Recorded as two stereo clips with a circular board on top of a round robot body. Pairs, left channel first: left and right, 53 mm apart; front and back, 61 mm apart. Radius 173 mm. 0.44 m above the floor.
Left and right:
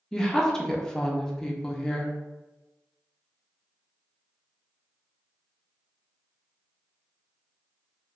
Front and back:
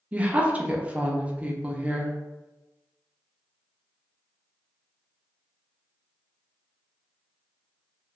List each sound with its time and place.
0.1 s a woman speaking: 155° left, 0.7 m